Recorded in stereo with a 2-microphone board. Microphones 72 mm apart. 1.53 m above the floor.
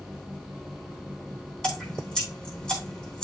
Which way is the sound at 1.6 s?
10° left (ahead or behind).